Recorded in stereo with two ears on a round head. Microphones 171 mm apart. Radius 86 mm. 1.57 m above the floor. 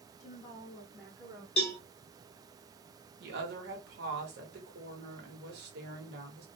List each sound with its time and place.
0.2 s a woman speaking: 40° left (ahead or behind), 0.5 m; by 1.5 s 20° right (ahead or behind), 0.9 m
1.6 s a cowbell: 30° left (ahead or behind), 1.4 m
3.2 s a woman speaking: 60° right (ahead or behind), 1.1 m